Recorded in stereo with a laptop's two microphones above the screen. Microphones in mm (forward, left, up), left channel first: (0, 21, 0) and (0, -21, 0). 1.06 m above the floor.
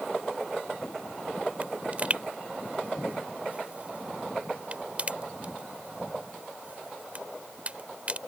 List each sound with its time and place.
1.6 s a pop: 30° right (ahead or behind)